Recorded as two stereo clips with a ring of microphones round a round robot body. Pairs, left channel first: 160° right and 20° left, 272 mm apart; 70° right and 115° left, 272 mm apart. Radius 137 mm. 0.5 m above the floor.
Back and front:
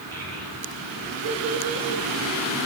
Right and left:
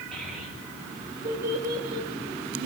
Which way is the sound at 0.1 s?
20° left.